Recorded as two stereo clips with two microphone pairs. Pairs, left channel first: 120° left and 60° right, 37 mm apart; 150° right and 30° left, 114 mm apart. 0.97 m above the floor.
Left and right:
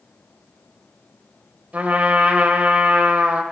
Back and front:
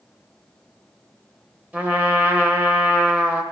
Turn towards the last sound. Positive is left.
turn(degrees=-45)